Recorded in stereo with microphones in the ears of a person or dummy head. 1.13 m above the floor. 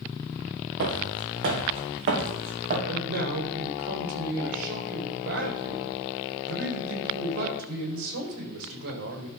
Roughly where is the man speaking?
Right.